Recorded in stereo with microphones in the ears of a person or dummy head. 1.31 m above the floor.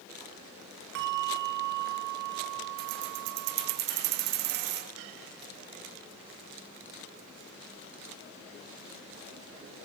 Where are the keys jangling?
60° right (ahead or behind), 1.2 m.